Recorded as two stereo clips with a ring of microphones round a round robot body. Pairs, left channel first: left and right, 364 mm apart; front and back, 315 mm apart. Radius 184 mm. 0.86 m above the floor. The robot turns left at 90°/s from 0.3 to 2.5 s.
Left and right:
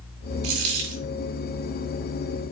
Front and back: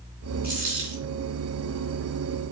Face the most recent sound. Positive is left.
turn(degrees=80)